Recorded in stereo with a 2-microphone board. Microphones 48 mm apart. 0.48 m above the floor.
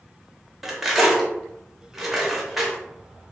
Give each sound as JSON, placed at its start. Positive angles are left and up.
{"t": 0.6, "sound": "cutlery clinking", "side_deg": -5, "distance_m": 0.9}